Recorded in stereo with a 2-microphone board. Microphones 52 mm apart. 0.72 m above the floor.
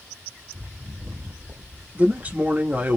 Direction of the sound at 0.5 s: 55° right (ahead or behind).